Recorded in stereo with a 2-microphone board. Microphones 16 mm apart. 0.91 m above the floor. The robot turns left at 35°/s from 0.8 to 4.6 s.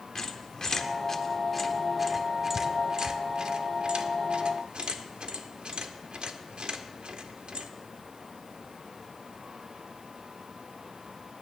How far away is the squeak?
About 0.9 m.